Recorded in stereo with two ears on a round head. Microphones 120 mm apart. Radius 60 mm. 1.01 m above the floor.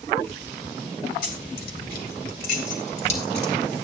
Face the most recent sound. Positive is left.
turn(degrees=45)  # may be behind; listen again after turning